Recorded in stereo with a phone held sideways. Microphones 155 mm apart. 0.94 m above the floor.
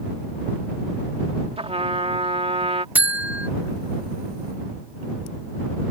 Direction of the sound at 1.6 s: 45° right (ahead or behind).